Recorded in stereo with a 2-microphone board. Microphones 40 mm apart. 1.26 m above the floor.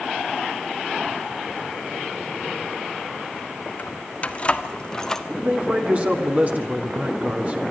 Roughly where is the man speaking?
Right.